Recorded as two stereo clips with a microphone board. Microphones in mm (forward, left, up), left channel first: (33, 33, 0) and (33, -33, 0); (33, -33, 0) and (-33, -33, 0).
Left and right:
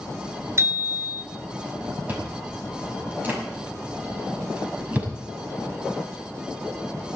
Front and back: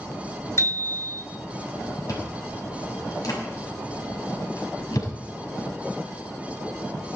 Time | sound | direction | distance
0.6 | a bicycle bell | 45° right | 3 m
2.1 | chewing | 25° right | 6 m